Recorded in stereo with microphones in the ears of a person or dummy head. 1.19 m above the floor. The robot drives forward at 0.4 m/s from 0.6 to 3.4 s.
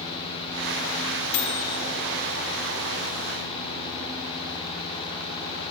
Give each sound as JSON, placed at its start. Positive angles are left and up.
{"t": 1.3, "sound": "a microwave", "side_deg": 65, "distance_m": 3.0}